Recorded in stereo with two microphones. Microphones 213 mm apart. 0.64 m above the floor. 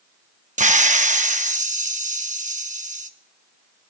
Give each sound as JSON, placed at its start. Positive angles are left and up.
{"t": 0.6, "sound": "a hiss", "side_deg": -35, "distance_m": 0.7}